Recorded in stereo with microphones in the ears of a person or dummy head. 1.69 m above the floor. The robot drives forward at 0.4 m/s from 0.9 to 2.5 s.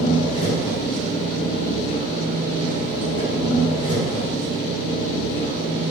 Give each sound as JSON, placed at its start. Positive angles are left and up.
{"t": 0.0, "sound": "an engine running", "side_deg": 45, "distance_m": 1.0}